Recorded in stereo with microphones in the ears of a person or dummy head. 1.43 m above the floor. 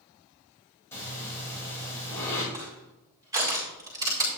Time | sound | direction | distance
0.9 | breathing | 10° left (ahead or behind) | 5.5 m
2.5 | crushing | 20° right (ahead or behind) | 5 m